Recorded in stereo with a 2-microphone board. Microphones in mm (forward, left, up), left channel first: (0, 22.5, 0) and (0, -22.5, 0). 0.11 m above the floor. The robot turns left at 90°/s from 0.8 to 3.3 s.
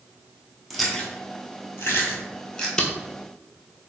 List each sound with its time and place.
0.7 s chewing: centre (ahead or behind), 1.0 m; by 2.7 s 10° left (ahead or behind), 1.0 m
2.8 s tape being pulled: 20° left (ahead or behind), 0.6 m; by 2.9 s 25° left (ahead or behind), 0.6 m